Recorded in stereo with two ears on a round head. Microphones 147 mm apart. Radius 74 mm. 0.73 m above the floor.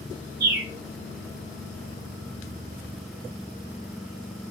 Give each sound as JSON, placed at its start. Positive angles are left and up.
{"t": 0.4, "sound": "a bird", "side_deg": -65, "distance_m": 1.1}